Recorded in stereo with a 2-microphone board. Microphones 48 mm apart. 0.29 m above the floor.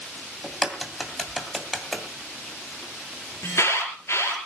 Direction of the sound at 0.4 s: 5° left (ahead or behind).